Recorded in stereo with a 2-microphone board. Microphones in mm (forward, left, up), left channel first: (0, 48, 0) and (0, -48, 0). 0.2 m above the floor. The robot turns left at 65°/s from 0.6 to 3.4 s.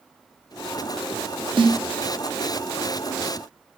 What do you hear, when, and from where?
1.6 s a snare drum: 55° right (ahead or behind), 3 m; by 1.8 s 70° right (ahead or behind), 3 m